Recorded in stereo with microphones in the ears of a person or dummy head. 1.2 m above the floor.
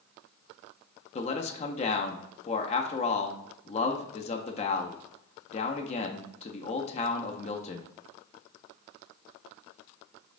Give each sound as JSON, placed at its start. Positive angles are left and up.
{"t": 1.1, "sound": "a man speaking", "side_deg": 25, "distance_m": 0.5}